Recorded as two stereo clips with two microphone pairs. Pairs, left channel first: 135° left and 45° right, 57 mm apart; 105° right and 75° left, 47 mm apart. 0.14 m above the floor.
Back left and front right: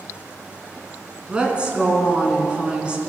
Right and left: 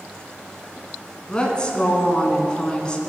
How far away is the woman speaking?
About 1.3 m.